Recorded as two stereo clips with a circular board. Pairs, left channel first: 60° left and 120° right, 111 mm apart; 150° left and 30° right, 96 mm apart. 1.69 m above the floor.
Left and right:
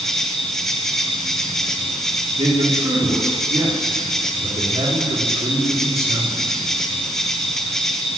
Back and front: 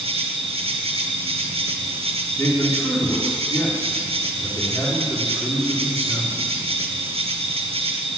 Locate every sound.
0.0 s an insect: 25° right, 1.4 m
2.4 s a man speaking: 145° right, 4 m